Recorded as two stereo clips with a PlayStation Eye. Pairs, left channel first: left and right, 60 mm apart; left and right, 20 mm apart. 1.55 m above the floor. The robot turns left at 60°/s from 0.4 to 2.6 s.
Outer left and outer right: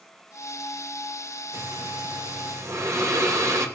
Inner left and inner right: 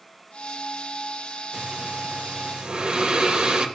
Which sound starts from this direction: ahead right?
Breathing, at 1.5 s.